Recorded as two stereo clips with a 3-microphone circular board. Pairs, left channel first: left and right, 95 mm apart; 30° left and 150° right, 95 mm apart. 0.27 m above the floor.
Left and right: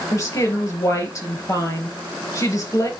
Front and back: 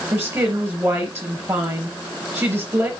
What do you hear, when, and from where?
0.1 s a woman speaking: 145° left, 4.5 m